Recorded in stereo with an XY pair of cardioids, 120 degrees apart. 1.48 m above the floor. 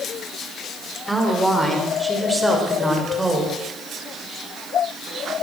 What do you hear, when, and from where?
1.1 s a woman speaking: 5° right, 5.5 m; by 3.5 s 15° right, 7 m